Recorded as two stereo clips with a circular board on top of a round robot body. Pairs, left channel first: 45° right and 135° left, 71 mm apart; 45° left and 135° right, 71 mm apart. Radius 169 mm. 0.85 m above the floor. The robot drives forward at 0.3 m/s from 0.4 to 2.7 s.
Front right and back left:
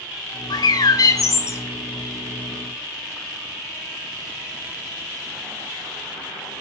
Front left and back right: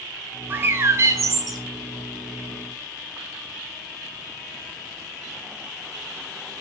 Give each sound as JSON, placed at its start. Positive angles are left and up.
{"t": 0.5, "sound": "a bird", "azimuth_deg": -70, "distance_m": 0.7}